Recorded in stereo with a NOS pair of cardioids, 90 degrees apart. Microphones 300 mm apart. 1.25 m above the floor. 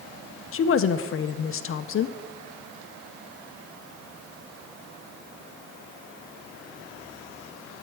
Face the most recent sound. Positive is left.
turn(degrees=45)